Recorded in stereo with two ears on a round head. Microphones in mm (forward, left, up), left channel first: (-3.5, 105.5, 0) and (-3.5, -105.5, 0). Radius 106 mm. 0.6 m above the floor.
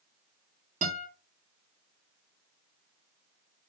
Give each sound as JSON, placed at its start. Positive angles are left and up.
{"t": 0.8, "sound": "a guitar", "side_deg": -30, "distance_m": 1.5}